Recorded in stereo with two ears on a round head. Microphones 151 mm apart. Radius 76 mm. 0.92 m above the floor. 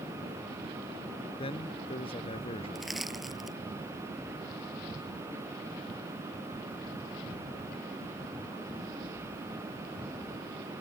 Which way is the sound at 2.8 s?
Centre (ahead or behind).